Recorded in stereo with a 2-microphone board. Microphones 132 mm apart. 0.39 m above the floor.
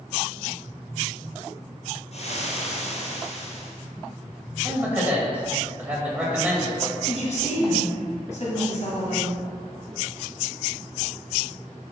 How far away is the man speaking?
About 2.5 m.